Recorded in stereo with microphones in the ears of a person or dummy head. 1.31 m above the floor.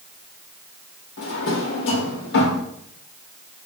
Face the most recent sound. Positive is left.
turn(degrees=65)  # may be behind; listen again after turning